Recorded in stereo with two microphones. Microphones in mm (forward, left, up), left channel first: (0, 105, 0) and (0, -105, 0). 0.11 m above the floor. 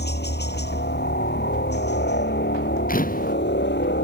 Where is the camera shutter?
40° left (ahead or behind).